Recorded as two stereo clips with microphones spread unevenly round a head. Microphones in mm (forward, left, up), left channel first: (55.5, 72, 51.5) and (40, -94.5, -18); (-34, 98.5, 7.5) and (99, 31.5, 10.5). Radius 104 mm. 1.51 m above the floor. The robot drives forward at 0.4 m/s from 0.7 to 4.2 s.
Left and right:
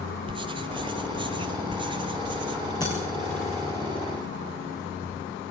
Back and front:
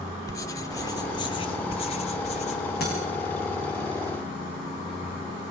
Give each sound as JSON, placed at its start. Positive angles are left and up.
{"t": 0.3, "sound": "writing", "azimuth_deg": 180, "distance_m": 1.2}
{"t": 2.8, "sound": "breaking glass", "azimuth_deg": 150, "distance_m": 7.5}